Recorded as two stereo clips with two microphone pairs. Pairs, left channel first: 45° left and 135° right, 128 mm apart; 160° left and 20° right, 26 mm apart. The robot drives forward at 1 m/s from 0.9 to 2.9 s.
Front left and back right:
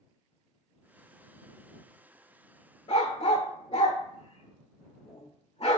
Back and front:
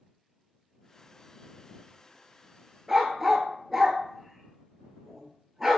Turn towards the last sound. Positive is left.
turn(degrees=60)